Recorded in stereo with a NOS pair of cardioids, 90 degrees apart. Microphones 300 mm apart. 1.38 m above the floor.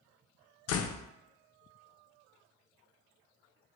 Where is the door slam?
60° left, 0.6 m.